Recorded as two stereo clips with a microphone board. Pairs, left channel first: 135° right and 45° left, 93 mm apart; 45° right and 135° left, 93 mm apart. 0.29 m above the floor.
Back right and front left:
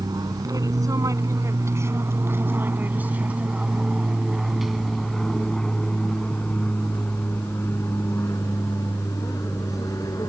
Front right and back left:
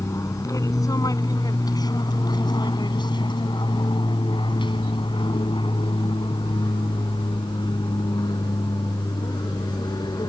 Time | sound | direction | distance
0.0 | an aircraft | 5° left | ?